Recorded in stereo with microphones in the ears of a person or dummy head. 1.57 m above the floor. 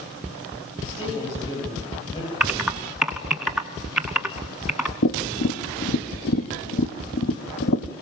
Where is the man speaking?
30° left (ahead or behind), 8.5 m.